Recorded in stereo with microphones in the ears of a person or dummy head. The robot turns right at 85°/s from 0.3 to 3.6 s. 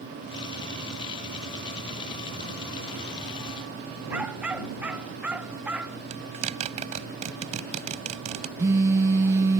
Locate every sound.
4.1 s a dog barking: 10° right (ahead or behind)
6.1 s a zipper: 45° right (ahead or behind)
8.6 s a phone buzzing: 20° right (ahead or behind)